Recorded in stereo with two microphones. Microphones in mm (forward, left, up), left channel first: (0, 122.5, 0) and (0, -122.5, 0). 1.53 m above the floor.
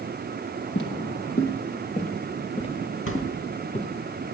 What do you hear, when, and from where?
0.8 s footsteps: 55° left (ahead or behind), 2.5 m; by 3.9 s 5° left (ahead or behind), 3 m
3.1 s a thud: 60° left (ahead or behind), 3 m